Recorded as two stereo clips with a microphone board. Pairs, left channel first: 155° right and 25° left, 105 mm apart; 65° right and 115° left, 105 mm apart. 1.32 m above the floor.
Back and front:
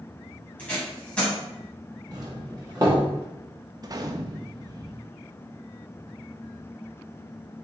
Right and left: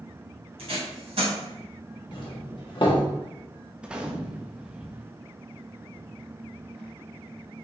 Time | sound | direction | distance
0.6 | tape being pulled | 125° left | 2.5 m
2.1 | a doorbell | 25° right | 1.3 m
3.8 | a gunshot | 35° left | 0.5 m